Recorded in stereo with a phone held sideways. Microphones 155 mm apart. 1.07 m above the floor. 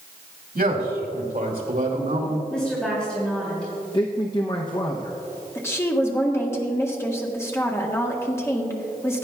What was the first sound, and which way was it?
A man speaking, 75° right (ahead or behind).